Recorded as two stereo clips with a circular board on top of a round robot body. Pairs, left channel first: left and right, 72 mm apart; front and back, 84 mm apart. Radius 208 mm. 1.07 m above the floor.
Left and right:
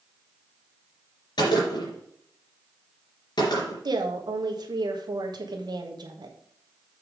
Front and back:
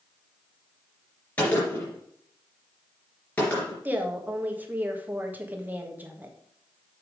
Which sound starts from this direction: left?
A gunshot, at 1.4 s.